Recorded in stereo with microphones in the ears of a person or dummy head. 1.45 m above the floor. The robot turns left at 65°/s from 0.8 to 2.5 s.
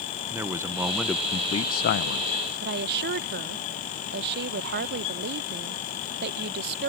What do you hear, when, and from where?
0.3 s a man speaking: 165° right; by 2.3 s 95° left
2.6 s a woman speaking: 50° right (ahead or behind)